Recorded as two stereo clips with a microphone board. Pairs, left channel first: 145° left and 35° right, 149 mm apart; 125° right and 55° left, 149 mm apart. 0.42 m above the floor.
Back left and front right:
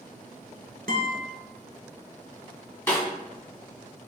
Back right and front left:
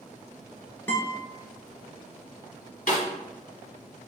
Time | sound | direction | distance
0.9 | a guitar | 45° right | 0.9 m
2.9 | a snare drum | 140° right | 1.7 m